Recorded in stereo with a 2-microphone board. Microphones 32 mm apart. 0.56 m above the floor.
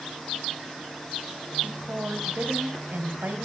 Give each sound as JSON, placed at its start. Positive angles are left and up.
{"t": 1.6, "sound": "a woman speaking", "side_deg": -65, "distance_m": 3.0}